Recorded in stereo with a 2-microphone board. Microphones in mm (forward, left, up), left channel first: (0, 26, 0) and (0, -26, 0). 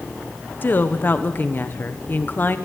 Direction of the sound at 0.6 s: 40° left (ahead or behind).